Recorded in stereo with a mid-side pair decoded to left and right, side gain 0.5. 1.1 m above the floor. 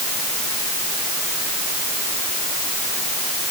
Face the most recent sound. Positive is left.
No sound to turn to.